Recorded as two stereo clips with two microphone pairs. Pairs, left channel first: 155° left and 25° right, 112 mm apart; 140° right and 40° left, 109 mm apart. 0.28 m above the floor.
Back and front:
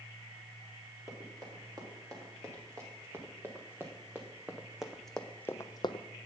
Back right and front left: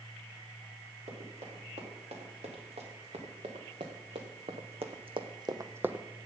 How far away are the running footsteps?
About 4 m.